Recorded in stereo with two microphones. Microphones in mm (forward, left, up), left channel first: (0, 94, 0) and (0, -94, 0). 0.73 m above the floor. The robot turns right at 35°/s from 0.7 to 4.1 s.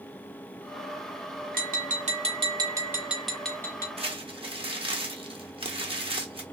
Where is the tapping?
60° right, 0.8 m; by 3.9 s 20° left, 0.8 m.